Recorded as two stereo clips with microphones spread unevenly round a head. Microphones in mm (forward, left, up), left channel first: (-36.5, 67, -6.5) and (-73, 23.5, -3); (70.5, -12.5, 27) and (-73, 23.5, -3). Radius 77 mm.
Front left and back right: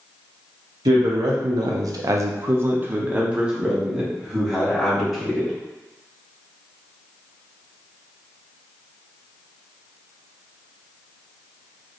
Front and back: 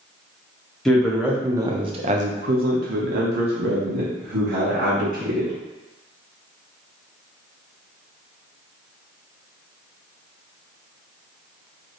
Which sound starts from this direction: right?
A man speaking, at 0.8 s.